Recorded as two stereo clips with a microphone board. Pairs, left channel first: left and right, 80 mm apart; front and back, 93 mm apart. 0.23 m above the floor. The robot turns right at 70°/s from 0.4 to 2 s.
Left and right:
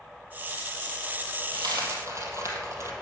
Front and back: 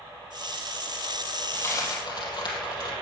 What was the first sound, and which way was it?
A dropped coin, 75° right.